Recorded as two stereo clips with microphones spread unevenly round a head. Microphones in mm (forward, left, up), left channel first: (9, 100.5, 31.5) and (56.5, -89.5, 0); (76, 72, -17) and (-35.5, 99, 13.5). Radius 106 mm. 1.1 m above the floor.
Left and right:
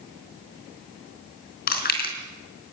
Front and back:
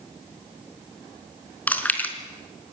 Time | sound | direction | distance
1.7 | chewing | 65° left | 4.5 m